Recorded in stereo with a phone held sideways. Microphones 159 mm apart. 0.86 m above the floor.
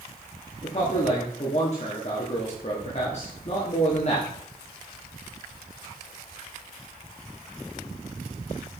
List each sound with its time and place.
0.6 s a man speaking: 45° left (ahead or behind), 1.4 m